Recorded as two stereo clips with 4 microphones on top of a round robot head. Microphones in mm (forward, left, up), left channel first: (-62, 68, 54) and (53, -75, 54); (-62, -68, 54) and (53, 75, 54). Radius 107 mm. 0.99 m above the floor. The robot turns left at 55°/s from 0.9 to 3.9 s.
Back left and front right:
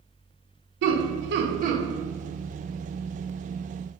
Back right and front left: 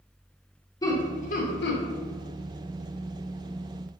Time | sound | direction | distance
0.8 | laughter | 55° right | 0.8 m